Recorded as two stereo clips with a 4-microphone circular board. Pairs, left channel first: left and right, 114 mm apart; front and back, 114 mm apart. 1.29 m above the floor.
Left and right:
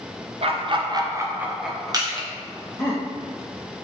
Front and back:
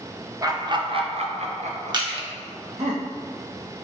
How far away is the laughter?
About 0.8 m.